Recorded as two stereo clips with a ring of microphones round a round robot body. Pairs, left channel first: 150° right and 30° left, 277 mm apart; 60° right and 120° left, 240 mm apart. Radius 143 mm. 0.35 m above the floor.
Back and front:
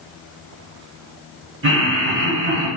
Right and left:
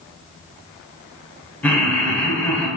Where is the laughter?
20° left, 1.3 m.